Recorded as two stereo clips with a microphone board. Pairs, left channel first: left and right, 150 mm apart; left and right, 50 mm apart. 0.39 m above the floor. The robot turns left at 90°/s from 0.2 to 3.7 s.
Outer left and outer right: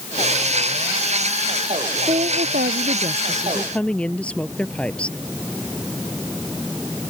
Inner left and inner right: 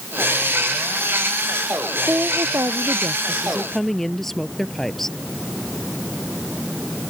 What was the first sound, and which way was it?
A woman speaking, 40° right.